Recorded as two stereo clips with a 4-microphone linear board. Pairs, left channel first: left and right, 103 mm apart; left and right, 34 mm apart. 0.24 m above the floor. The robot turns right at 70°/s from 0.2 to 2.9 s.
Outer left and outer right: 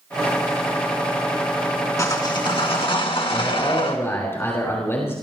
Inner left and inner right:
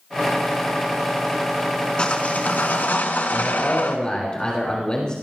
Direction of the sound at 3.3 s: 25° left (ahead or behind).